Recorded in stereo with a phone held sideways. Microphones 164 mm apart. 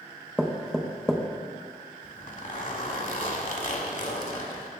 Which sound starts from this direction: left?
A zipper, at 2.0 s.